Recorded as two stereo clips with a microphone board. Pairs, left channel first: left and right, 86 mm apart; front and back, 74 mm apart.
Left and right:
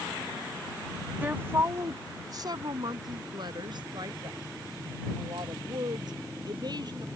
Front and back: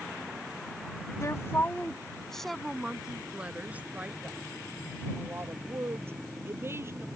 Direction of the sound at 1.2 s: 25° right.